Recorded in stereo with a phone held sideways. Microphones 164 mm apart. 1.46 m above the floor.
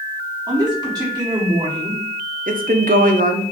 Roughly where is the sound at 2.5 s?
Right.